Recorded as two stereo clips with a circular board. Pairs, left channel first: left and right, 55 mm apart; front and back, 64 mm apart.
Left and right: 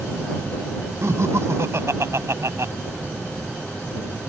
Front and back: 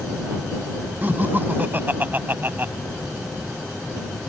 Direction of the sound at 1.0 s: 120° right.